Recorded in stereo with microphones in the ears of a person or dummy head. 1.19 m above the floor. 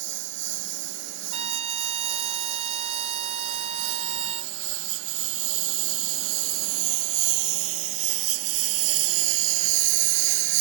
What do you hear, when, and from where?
0.0 s a lawn mower: 60° right (ahead or behind); by 10.6 s 70° right (ahead or behind)
1.3 s a trumpet: 35° right (ahead or behind)